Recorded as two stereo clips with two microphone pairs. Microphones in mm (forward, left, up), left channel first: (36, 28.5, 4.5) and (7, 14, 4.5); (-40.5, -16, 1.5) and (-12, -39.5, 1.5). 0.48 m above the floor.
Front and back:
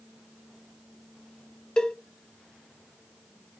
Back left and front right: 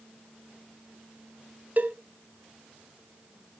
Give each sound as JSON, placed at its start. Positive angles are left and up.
{"t": 1.8, "sound": "a cowbell", "azimuth_deg": -35, "distance_m": 0.9}